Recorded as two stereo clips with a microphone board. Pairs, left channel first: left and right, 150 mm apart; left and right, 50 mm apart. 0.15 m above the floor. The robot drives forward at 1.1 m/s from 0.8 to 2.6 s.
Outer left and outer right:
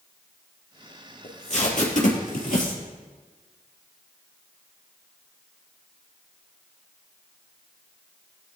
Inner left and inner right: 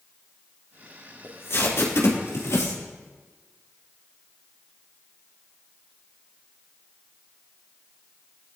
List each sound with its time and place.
1.2 s tape being pulled: 55° left (ahead or behind), 4 m; by 2.8 s 65° left (ahead or behind), 3.5 m